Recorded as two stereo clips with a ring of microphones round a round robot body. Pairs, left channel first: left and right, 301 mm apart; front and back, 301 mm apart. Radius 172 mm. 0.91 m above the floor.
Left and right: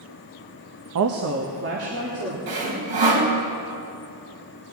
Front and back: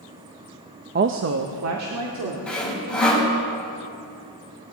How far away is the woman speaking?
About 0.7 m.